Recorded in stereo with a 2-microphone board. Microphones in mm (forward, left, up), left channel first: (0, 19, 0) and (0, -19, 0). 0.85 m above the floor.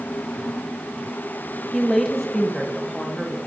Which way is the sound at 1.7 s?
5° left (ahead or behind).